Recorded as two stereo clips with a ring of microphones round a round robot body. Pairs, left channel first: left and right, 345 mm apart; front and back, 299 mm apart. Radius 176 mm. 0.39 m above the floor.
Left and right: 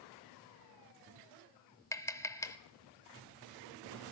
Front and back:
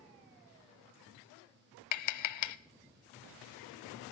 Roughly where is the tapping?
Ahead.